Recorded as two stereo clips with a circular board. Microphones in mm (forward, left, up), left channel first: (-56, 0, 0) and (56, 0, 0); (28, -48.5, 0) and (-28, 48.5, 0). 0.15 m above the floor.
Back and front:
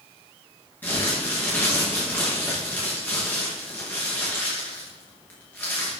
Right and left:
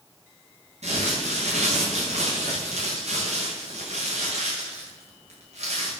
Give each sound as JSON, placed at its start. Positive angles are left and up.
{"t": 0.8, "sound": "crumpling", "azimuth_deg": 105, "distance_m": 5.0}